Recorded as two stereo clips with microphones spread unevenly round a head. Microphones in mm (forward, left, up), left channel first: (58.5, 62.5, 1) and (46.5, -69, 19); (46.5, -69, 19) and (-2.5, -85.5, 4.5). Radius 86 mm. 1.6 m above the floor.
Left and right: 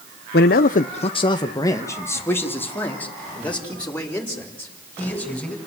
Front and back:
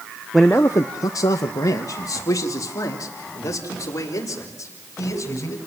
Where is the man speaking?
105° left, 0.8 m; by 5.6 s straight ahead, 7.5 m.